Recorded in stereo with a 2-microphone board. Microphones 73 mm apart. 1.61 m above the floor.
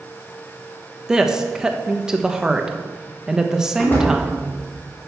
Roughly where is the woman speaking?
Centre.